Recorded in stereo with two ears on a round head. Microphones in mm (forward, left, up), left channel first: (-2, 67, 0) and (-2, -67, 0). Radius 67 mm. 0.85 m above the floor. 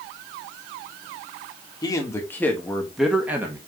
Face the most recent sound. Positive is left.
turn(degrees=-15)  # may be behind; listen again after turning